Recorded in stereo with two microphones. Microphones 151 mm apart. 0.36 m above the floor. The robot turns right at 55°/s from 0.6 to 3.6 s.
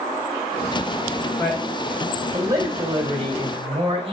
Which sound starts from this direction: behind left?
A man speaking, at 1.4 s.